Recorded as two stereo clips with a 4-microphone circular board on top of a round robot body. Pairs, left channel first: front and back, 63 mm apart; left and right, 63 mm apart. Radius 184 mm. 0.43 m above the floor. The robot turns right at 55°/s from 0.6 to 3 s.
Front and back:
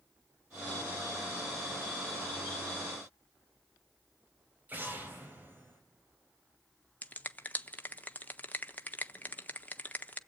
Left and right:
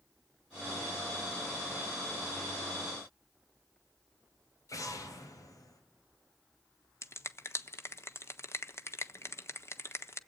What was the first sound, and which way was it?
An explosion, 120° left.